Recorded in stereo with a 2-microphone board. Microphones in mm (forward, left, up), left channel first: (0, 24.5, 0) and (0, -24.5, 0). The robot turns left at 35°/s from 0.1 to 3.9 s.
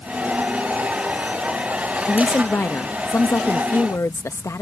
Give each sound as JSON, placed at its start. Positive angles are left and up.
{"t": 2.1, "sound": "a woman speaking", "azimuth_deg": 150}